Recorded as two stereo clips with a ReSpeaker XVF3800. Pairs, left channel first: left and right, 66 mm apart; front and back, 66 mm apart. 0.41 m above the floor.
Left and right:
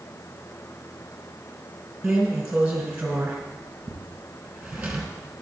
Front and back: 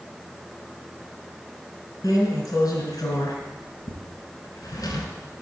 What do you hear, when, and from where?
2.0 s a drawer: 15° right, 2.5 m